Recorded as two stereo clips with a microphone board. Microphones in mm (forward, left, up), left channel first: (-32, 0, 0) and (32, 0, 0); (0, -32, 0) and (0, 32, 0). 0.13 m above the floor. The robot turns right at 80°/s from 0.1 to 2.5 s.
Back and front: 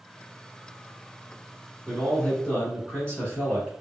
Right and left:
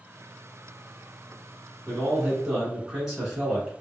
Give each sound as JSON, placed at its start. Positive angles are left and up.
{"t": 1.9, "sound": "a man speaking", "azimuth_deg": 105, "distance_m": 1.4}